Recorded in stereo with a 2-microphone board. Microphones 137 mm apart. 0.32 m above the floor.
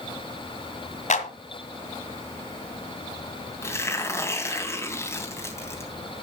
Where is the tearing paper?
20° left (ahead or behind), 3 m.